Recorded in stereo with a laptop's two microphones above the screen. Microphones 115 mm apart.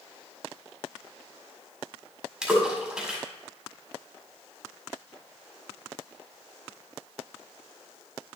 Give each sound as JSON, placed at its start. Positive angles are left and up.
{"t": 2.4, "sound": "a splash", "side_deg": -5, "distance_m": 1.7}